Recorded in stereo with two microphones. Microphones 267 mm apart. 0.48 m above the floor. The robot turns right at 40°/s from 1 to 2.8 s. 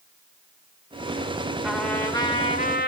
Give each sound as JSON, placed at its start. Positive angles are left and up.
{"t": 1.6, "sound": "a trumpet", "azimuth_deg": -5, "distance_m": 1.4}